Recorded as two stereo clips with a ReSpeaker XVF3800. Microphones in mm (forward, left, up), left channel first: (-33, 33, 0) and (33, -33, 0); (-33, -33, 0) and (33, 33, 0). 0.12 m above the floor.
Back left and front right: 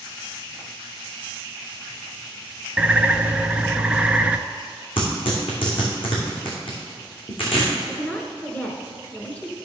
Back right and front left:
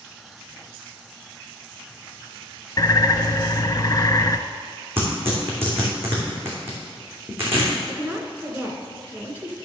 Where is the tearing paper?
110° left, 3 m.